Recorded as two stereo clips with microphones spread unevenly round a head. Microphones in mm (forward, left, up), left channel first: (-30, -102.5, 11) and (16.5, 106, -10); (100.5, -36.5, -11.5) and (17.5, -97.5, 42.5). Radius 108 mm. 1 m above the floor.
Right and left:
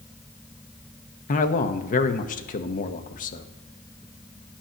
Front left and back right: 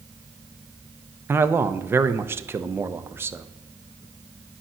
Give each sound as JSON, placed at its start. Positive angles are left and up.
{"t": 1.3, "sound": "a man speaking", "azimuth_deg": -55, "distance_m": 0.8}